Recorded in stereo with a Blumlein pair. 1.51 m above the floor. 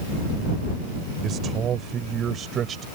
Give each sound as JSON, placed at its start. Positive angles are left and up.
{"t": 1.2, "sound": "a man speaking", "azimuth_deg": -30}